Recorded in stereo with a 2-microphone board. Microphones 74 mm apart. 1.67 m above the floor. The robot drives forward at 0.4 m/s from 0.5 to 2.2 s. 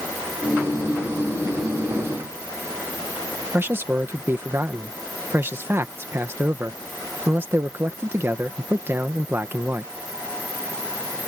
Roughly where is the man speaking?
Right.